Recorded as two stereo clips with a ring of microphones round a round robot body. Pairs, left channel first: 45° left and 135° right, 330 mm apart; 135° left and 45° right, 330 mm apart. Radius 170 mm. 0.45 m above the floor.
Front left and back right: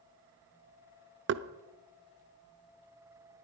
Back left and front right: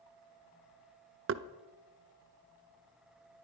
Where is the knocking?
90° right, 0.7 m.